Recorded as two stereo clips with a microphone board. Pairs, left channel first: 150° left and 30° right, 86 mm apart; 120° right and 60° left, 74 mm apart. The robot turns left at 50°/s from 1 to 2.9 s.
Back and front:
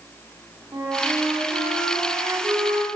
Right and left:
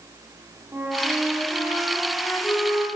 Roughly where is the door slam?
I don't hear a door slam.